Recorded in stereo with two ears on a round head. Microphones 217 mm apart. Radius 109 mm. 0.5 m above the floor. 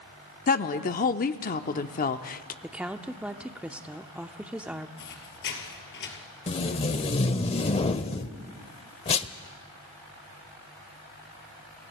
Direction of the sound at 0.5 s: 35° left (ahead or behind).